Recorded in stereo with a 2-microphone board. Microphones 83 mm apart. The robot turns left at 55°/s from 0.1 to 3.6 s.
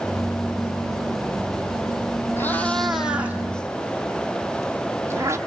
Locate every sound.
2.4 s a cat meowing: 30° left (ahead or behind), 1.3 m; by 5.4 s 35° right (ahead or behind), 1.3 m